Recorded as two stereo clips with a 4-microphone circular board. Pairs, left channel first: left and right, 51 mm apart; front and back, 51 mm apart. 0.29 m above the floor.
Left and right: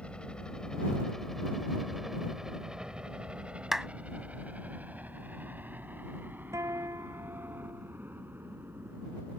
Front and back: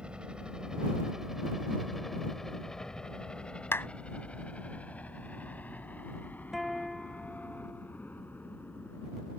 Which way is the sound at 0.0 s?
135° left.